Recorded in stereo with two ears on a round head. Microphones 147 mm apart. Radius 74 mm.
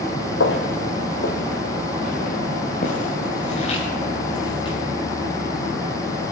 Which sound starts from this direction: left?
Footsteps, at 0.4 s.